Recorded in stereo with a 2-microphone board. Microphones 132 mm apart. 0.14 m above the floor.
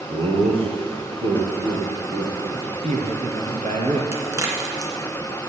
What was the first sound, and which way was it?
Laughter, 45° right (ahead or behind).